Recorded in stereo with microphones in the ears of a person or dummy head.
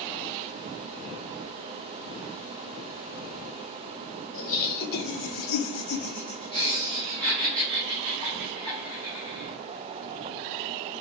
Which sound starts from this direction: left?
Laughter, at 4.3 s.